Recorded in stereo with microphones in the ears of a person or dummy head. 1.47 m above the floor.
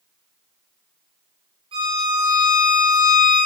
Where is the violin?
30° right (ahead or behind), 1.8 m.